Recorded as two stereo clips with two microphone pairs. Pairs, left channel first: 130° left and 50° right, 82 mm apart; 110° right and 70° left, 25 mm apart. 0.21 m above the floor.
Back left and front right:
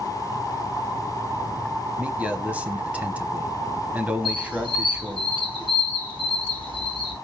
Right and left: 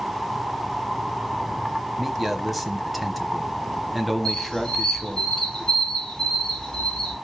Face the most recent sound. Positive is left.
turn(degrees=-45)